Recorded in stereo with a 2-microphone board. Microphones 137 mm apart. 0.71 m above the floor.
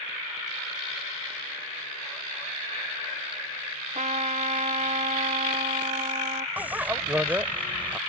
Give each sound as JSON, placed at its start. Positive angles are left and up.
{"t": 4.0, "sound": "a trumpet", "side_deg": -55}
{"t": 6.6, "sound": "a bicycle bell", "side_deg": -10}